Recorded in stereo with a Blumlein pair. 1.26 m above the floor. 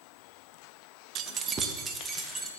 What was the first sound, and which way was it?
Keys jangling, 35° right.